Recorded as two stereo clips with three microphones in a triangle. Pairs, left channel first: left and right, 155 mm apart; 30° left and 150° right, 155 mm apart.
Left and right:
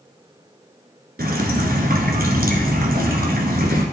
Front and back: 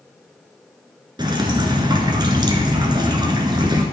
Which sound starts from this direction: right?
Dripping, at 1.2 s.